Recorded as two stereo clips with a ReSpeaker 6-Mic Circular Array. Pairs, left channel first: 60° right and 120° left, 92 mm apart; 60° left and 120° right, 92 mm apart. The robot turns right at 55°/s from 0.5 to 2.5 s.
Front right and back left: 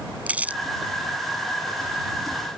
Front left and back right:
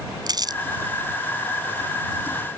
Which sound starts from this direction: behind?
Crumpling, at 0.3 s.